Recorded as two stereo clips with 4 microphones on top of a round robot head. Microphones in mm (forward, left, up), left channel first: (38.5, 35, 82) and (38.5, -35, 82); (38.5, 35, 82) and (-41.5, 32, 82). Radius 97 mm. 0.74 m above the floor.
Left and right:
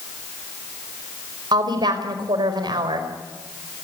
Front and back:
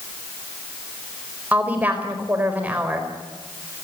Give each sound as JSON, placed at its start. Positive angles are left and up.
{"t": 1.5, "sound": "a woman speaking", "azimuth_deg": -105, "distance_m": 4.5}